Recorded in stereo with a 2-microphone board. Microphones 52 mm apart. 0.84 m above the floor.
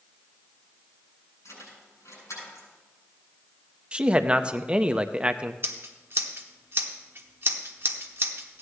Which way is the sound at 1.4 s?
85° left.